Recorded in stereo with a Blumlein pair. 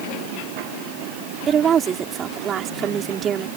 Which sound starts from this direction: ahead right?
A woman speaking, at 1.5 s.